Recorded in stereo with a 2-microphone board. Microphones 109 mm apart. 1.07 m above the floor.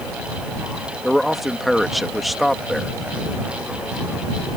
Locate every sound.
1.0 s a man speaking: centre (ahead or behind)